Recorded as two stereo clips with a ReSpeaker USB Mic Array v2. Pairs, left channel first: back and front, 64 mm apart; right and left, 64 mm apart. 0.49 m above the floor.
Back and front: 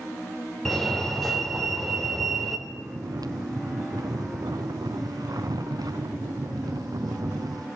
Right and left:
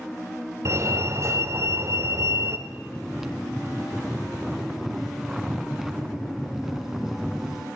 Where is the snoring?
5° left, 1.5 m.